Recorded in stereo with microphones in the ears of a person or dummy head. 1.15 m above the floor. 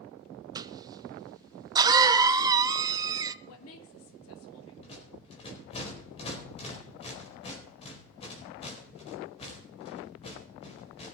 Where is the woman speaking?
80° left, 2 m.